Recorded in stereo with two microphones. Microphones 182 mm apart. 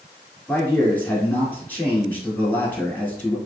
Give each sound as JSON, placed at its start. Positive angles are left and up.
{"t": 0.5, "sound": "a man speaking", "side_deg": 10, "distance_m": 1.2}